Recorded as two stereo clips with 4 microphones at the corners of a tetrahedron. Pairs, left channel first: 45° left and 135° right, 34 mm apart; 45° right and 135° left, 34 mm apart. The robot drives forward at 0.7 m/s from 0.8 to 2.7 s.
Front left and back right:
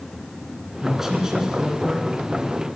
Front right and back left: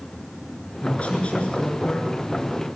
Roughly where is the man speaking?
Ahead right.